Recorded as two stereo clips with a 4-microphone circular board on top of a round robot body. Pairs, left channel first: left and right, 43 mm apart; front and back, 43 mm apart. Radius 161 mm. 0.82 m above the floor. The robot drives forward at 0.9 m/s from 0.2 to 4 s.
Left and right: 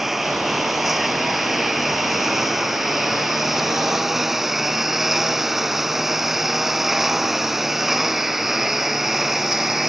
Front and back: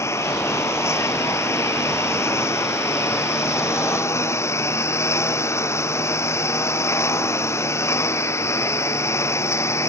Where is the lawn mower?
5° right.